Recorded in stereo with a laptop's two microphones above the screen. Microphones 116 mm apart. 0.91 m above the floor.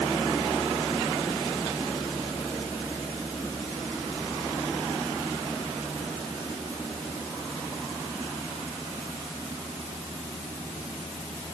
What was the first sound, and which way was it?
Only background noise.